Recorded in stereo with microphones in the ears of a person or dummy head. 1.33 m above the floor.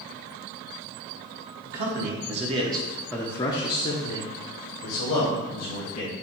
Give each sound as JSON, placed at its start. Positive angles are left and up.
{"t": 1.6, "sound": "a man speaking", "side_deg": -50, "distance_m": 1.1}